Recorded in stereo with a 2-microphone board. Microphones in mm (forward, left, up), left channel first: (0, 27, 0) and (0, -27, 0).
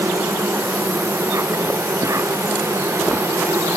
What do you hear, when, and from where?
0.0 s an insect: 70° right (ahead or behind)